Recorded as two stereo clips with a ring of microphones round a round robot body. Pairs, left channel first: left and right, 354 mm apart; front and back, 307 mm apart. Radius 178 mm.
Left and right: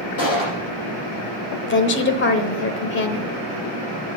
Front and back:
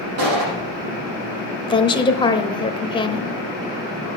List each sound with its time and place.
0.2 s a gunshot: 145° left, 6 m
1.7 s a woman speaking: 65° left, 1.1 m